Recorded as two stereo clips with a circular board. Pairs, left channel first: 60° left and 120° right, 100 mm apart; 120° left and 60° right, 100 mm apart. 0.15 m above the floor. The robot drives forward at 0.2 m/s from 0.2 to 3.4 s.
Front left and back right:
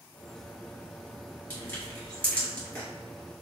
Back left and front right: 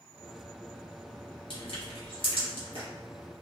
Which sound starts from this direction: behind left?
Crushing, at 1.5 s.